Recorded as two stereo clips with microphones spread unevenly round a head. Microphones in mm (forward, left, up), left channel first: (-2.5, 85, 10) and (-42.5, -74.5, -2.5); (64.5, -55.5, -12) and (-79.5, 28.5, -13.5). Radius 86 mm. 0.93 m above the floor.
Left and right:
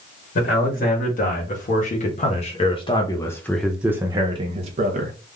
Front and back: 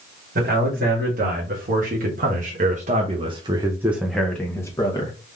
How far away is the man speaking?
About 2 m.